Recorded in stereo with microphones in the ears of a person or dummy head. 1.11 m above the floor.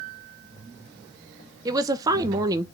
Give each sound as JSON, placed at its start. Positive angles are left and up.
{"t": 1.6, "sound": "a woman speaking", "side_deg": -20, "distance_m": 0.6}